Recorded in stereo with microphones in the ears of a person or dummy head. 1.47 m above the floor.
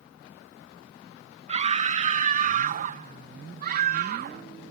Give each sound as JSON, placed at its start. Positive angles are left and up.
{"t": 1.5, "sound": "a scream", "side_deg": -35}